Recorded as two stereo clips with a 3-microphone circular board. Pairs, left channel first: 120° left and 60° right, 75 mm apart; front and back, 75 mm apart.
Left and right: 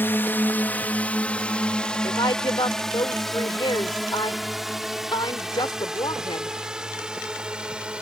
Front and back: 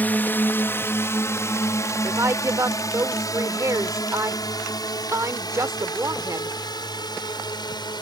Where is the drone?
60° left; by 8.0 s 15° left.